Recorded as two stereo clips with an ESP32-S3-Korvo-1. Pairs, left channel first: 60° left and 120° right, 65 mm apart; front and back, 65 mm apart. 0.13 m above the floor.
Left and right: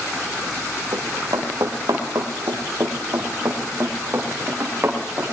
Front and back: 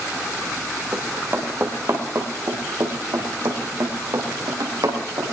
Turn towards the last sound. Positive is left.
turn(degrees=-175)